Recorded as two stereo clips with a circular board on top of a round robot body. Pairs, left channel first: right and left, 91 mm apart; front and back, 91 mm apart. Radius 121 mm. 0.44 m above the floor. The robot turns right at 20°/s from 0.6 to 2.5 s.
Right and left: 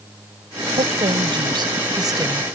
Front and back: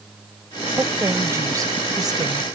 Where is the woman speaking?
110° left; by 2.5 s 145° left.